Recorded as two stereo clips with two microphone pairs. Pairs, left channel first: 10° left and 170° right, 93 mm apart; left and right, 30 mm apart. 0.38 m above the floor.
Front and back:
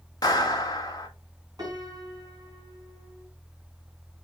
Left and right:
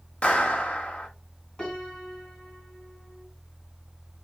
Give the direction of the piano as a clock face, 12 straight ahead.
7 o'clock.